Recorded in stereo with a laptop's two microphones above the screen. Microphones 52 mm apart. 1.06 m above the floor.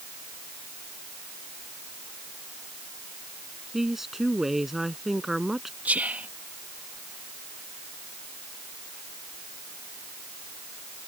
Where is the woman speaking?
5° right (ahead or behind).